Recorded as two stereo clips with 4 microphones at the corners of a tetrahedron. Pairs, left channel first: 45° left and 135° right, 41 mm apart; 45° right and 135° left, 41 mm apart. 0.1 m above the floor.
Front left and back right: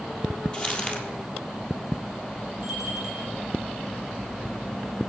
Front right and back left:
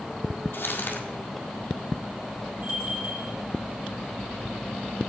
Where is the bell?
135° left, 2.5 m.